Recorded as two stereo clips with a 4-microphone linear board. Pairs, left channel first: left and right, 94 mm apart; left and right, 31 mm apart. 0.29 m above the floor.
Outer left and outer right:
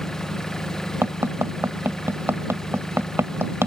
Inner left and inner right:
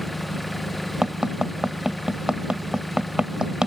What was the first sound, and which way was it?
An engine running, 5° left (ahead or behind).